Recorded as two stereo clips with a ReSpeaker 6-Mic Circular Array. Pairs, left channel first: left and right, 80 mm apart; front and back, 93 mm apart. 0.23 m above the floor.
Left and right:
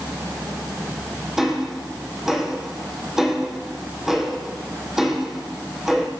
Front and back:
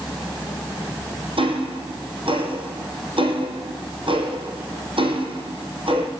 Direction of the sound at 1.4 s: 175° right.